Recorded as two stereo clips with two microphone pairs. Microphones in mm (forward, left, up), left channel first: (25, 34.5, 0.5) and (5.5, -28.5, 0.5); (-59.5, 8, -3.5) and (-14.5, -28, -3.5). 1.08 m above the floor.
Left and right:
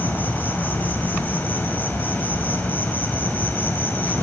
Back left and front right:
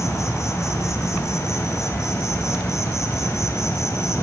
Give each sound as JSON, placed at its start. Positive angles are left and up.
{"t": 0.0, "sound": "an insect", "azimuth_deg": 130, "distance_m": 2.0}